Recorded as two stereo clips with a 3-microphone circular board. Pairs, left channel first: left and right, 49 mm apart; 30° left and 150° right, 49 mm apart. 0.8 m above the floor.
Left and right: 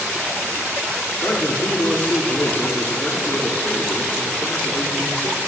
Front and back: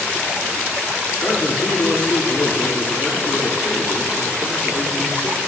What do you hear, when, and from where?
1.2 s a man speaking: 60° left, 2.5 m